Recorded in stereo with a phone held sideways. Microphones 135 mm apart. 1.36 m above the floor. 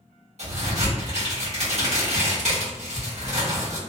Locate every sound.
0.4 s a crack: 60° right (ahead or behind), 1.3 m